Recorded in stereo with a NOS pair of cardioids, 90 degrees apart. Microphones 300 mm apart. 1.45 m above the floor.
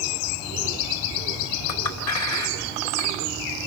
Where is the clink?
65° left, 2.5 m.